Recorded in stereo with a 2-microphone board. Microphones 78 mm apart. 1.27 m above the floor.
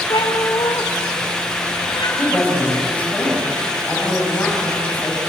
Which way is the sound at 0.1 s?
75° left (ahead or behind).